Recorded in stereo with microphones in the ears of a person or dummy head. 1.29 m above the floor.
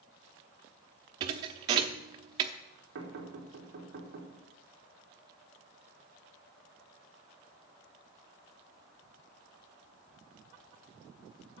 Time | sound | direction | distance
1.2 | a thud | 25° right (ahead or behind) | 0.8 m
3.0 | knocking | 65° right (ahead or behind) | 3.5 m